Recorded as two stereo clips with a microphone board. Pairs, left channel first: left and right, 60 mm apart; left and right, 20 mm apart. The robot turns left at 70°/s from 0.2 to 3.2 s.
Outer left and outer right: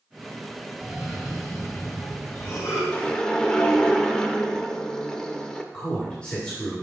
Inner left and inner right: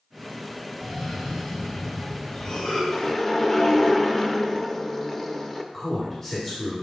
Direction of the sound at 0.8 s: 150° right.